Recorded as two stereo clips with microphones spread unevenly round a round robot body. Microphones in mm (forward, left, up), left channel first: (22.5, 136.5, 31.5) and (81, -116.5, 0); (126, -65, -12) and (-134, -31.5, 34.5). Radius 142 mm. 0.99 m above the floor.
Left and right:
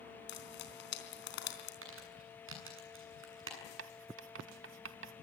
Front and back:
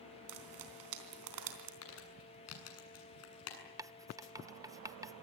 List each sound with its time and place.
0.3 s frying: 155° left, 3.5 m
1.8 s crumpling: 35° right, 7 m
3.8 s writing: 120° right, 0.8 m